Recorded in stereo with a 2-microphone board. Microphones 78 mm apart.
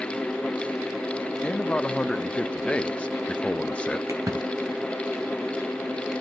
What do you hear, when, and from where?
1.4 s a man speaking: 15° left (ahead or behind), 0.6 m
4.1 s a splash: 40° right (ahead or behind), 2.5 m